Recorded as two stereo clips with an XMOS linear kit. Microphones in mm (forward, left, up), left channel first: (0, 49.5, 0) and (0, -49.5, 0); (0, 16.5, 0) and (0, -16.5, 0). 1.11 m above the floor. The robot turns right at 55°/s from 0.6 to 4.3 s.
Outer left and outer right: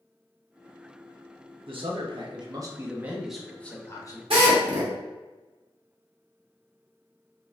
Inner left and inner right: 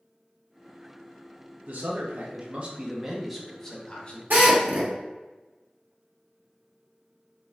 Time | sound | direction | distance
1.7 | a man speaking | 95° right | 0.8 m
4.3 | a drill | 75° right (ahead or behind) | 1.1 m